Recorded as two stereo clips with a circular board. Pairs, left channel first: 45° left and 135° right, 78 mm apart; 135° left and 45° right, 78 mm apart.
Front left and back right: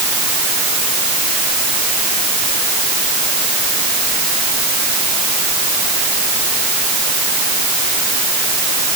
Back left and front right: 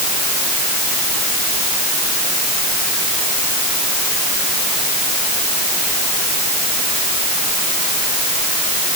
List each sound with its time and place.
Only background noise.